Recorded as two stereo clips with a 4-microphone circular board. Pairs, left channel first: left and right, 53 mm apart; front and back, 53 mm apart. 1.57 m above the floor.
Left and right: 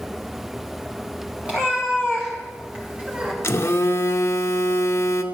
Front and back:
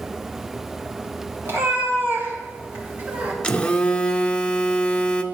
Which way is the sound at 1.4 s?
155° right.